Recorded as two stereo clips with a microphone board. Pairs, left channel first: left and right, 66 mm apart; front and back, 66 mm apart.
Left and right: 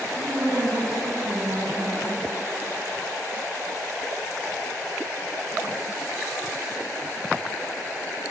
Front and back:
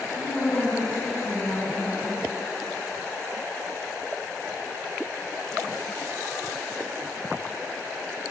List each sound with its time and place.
0.1 s a woman speaking: 85° right, 3 m